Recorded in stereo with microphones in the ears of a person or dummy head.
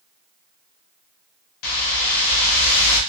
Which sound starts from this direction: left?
A whoosh, at 1.6 s.